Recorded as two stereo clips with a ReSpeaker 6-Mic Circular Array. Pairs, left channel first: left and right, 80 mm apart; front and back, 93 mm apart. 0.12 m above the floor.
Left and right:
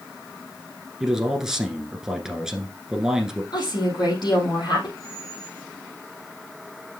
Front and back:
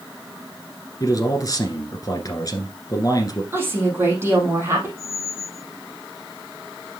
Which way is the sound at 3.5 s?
115° left.